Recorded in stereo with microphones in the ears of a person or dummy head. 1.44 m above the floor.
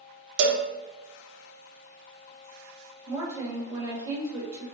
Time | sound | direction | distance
0.4 | a cowbell | 65° right (ahead or behind) | 0.7 m
3.1 | a woman speaking | 20° right (ahead or behind) | 1.4 m